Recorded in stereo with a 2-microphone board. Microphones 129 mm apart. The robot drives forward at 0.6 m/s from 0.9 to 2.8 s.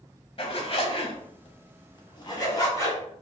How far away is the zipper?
About 0.7 m.